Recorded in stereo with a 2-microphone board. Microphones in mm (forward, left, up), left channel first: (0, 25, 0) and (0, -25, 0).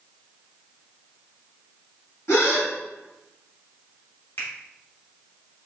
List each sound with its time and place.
2.3 s a gasp: 70° left (ahead or behind), 1.6 m
4.4 s a finger snap: 55° left (ahead or behind), 1.5 m